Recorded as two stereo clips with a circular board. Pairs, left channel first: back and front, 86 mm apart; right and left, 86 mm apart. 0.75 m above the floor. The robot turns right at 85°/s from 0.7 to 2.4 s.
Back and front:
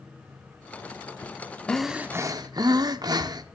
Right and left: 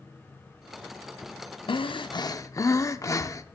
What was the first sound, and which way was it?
Breathing, 100° right.